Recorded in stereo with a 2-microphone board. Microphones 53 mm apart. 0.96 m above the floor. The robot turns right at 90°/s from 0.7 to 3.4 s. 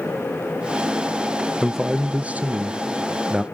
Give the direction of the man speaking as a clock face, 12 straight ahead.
6 o'clock.